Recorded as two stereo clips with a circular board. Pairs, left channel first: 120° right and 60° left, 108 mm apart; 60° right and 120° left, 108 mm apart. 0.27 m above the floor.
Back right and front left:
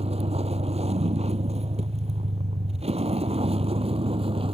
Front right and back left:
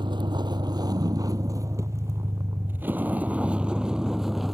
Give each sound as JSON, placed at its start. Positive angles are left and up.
{"t": 0.0, "sound": "a vehicle", "azimuth_deg": 75}